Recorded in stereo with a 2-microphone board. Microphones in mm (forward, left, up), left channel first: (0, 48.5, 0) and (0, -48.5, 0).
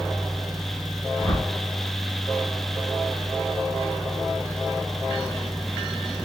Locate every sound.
1.2 s a whoosh: 50° left (ahead or behind), 1.2 m